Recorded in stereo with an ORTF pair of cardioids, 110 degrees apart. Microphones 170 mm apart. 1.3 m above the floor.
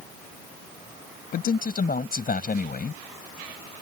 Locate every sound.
1.3 s a man speaking: 60° left